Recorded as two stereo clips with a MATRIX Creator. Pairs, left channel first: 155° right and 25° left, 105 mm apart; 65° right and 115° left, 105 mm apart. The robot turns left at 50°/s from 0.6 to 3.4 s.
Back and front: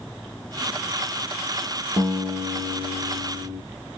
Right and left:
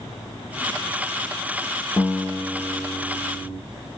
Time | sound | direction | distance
2.0 | a guitar | 40° left | 3.5 m